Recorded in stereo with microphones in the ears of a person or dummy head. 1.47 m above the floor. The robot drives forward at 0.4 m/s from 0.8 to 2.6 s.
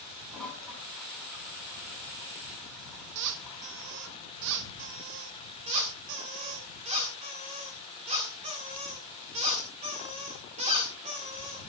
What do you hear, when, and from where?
0.3 s a toilet flushing: 5° left (ahead or behind), 5 m; by 4.2 s centre (ahead or behind), 5.5 m
3.1 s a squeak: 65° right (ahead or behind), 1.3 m
5.7 s a squeak: 30° right (ahead or behind), 1.8 m